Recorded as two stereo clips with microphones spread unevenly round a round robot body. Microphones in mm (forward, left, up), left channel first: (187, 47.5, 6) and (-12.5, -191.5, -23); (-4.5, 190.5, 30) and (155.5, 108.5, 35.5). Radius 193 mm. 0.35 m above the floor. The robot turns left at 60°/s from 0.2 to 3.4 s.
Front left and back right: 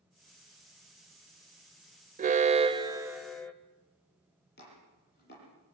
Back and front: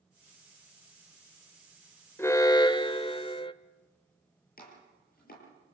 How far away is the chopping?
About 10 m.